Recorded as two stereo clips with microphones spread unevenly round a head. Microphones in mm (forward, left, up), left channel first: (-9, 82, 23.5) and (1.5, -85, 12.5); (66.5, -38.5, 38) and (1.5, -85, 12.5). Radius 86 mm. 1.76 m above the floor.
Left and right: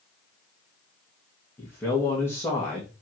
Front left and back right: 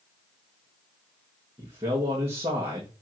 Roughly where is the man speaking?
Behind.